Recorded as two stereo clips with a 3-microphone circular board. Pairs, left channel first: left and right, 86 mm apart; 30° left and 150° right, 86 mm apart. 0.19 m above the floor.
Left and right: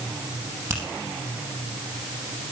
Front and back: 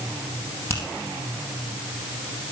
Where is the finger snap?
30° right, 4.5 m.